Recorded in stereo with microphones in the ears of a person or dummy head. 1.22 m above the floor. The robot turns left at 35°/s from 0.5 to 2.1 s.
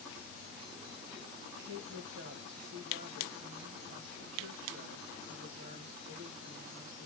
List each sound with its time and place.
1.6 s a woman speaking: 60° right (ahead or behind), 1.5 m; by 7.1 s 70° right (ahead or behind), 1.5 m